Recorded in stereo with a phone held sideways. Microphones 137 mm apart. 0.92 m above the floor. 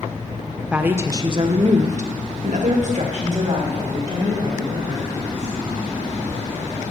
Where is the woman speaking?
10° right (ahead or behind), 0.7 m; by 5.5 s 50° right (ahead or behind), 2.5 m.